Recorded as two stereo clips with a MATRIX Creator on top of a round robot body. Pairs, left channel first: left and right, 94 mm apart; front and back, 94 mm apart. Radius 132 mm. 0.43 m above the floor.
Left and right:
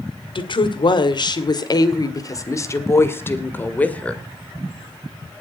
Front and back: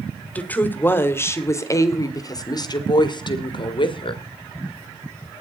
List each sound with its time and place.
0.3 s a woman speaking: 70° left, 2.5 m; by 4.2 s 15° left, 2.5 m